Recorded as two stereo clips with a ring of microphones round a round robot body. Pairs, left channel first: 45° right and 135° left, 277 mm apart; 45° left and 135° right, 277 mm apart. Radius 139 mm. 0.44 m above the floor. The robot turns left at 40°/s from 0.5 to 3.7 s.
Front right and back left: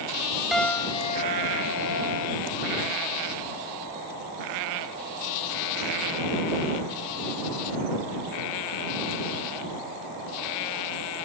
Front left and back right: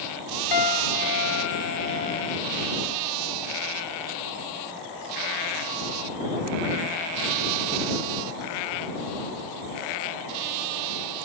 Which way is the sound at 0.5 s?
45° left.